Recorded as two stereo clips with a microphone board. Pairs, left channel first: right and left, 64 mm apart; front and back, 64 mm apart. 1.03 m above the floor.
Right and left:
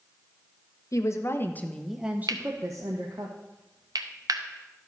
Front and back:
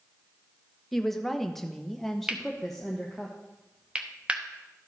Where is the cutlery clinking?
105° left, 0.9 m.